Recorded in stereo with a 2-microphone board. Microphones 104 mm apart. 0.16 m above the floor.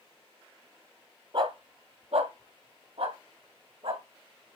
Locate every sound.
1.3 s a dog barking: 55° right (ahead or behind), 1.6 m; by 4.0 s 65° right (ahead or behind), 3.5 m